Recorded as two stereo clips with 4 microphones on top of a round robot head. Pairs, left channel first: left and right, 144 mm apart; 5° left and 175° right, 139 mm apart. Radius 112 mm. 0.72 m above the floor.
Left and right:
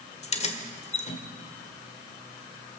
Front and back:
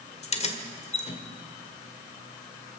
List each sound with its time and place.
0.2 s keys jangling: 50° left, 1.6 m